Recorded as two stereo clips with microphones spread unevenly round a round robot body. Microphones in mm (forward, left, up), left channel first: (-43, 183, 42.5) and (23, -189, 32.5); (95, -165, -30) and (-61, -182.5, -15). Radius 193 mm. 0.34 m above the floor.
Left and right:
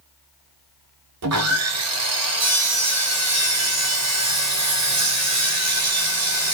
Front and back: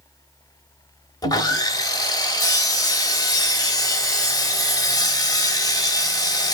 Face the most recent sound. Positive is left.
turn(degrees=-50)